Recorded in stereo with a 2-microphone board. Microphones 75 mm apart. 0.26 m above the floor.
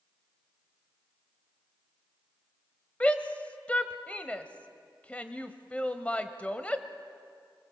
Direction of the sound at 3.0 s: 15° left (ahead or behind).